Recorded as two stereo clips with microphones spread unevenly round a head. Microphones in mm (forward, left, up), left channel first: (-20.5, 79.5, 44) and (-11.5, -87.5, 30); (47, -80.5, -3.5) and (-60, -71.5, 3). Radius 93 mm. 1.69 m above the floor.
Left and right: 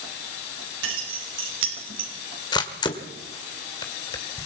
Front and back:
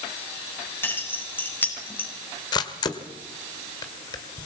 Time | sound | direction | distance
0.8 | keys jangling | 75° right | 6.5 m
2.5 | a camera shutter | 40° left | 1.8 m